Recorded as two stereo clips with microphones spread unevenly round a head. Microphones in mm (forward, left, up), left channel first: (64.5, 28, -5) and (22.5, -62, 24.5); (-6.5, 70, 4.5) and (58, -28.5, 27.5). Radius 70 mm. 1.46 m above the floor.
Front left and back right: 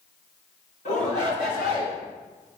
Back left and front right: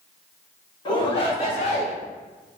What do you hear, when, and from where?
0.8 s a shout: 70° left, 3 m; by 1.9 s 95° left, 4 m